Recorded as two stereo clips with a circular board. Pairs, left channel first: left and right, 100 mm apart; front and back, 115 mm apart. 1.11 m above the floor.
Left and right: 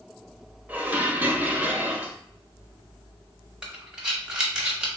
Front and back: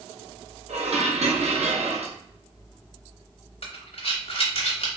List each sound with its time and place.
0.7 s dishes clattering: 165° right, 0.5 m
3.6 s breathing: 10° right, 0.8 m